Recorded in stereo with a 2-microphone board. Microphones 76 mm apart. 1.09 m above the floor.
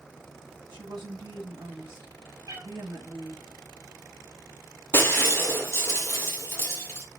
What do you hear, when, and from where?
0.7 s a woman speaking: 85° right, 1.8 m
2.5 s a cat meowing: 55° right (ahead or behind), 2.5 m
4.9 s breaking glass: 30° left (ahead or behind), 1.5 m